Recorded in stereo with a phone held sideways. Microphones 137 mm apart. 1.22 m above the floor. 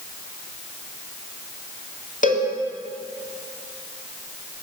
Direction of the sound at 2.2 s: 70° left (ahead or behind).